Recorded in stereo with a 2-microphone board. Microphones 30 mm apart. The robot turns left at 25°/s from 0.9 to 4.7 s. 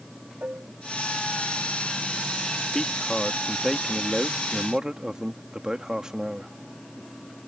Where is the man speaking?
25° left; by 6.5 s 20° right.